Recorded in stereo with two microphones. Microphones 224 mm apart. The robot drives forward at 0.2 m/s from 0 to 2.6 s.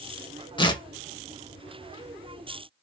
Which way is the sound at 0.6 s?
20° left (ahead or behind).